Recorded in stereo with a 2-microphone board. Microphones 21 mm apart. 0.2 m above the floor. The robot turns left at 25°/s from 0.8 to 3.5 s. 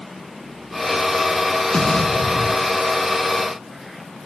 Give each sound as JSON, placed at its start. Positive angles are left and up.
{"t": 1.7, "sound": "an explosion", "side_deg": 55, "distance_m": 1.4}